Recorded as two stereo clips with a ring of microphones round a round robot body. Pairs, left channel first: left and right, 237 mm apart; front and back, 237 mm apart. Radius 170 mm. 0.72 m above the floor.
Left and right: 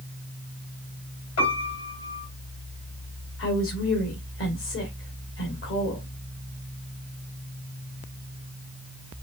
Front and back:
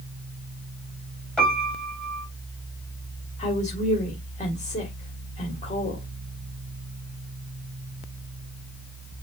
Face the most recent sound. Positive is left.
turn(degrees=60)